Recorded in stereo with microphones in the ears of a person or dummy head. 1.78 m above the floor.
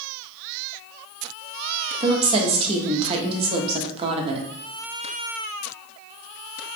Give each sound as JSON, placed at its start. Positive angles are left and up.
{"t": 2.0, "sound": "a woman speaking", "side_deg": -30, "distance_m": 0.9}